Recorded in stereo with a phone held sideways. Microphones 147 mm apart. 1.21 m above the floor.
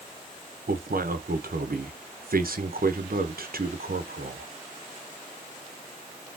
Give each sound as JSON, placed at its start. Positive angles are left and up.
{"t": 0.7, "sound": "a man speaking", "side_deg": -85, "distance_m": 0.8}